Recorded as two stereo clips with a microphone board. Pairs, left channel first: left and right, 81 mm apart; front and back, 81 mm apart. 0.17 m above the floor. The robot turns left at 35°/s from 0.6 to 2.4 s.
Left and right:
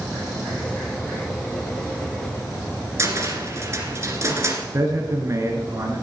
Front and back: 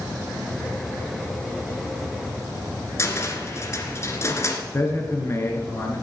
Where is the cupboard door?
45° right, 1.9 m.